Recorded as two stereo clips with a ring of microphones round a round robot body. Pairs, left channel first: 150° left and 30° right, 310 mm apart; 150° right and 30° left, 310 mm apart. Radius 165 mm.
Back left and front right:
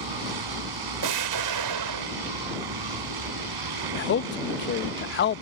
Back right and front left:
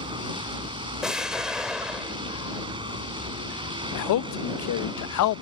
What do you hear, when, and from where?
0.0 s a vehicle: 45° right
1.0 s an explosion: 60° right
4.0 s a man speaking: 160° right